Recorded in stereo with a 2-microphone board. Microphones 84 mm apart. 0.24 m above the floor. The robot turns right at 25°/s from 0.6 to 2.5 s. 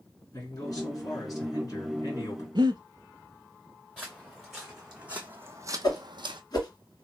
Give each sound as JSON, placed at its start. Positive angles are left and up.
{"t": 0.3, "sound": "a man speaking", "azimuth_deg": 75, "distance_m": 2.0}
{"t": 2.5, "sound": "breathing", "side_deg": -65, "distance_m": 0.6}
{"t": 4.0, "sound": "footsteps", "side_deg": 5, "distance_m": 1.3}
{"t": 5.8, "sound": "a whoosh", "side_deg": 50, "distance_m": 1.7}